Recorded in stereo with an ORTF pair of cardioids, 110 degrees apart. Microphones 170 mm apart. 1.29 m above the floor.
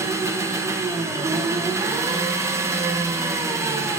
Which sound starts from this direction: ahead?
An engine running, at 0.0 s.